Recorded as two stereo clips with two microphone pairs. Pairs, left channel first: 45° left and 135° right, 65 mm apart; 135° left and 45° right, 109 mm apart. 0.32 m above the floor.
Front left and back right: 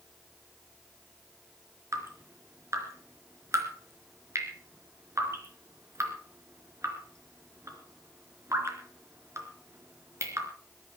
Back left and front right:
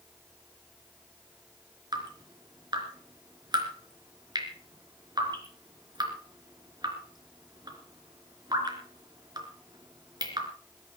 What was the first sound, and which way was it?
Dripping, 95° right.